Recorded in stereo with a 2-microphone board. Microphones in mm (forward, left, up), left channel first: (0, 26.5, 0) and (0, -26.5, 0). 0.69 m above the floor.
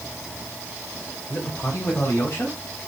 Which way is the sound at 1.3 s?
45° left (ahead or behind).